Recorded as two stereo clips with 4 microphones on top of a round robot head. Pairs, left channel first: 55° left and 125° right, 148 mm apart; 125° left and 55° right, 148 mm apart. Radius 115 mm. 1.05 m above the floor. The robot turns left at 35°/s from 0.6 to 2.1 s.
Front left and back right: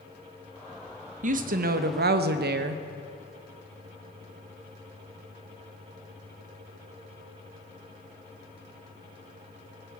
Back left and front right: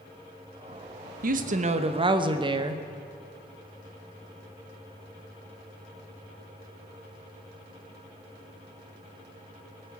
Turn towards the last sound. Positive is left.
turn(degrees=-115)